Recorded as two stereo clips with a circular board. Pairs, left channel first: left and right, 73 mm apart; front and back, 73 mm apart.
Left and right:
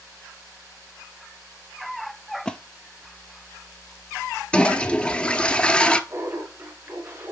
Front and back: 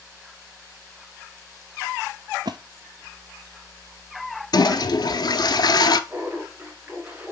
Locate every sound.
2.5 s a splash: 170° left, 0.6 m
4.5 s a toilet flushing: 15° left, 0.6 m
6.1 s laughter: 120° right, 1.9 m